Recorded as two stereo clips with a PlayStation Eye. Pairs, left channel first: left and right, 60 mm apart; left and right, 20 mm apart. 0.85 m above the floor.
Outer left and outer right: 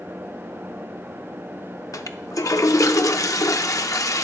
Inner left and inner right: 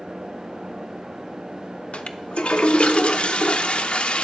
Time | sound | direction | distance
1.9 | a toilet flushing | 65° left (ahead or behind) | 0.6 m